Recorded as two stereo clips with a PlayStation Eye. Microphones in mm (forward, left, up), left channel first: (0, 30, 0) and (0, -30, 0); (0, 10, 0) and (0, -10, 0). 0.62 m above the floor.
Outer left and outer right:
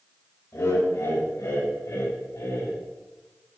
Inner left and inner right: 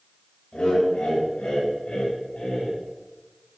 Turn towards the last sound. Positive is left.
turn(degrees=65)  # may be behind; listen again after turning